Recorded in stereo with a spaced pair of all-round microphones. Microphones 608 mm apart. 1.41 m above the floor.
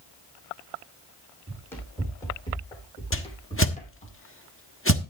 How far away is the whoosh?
About 1.1 m.